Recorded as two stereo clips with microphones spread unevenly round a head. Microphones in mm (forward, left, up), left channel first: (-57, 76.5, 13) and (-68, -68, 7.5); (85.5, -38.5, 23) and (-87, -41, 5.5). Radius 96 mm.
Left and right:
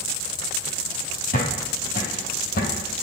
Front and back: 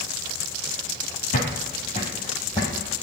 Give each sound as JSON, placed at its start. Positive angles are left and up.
{"t": 1.3, "sound": "footsteps", "azimuth_deg": 50, "distance_m": 1.8}